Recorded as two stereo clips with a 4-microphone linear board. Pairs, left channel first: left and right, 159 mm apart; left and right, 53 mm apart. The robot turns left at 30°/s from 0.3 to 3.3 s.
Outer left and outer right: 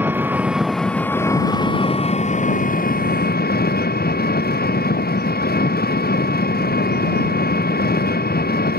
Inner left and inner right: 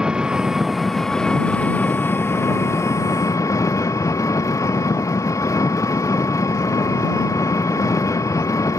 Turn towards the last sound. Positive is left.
turn(degrees=100)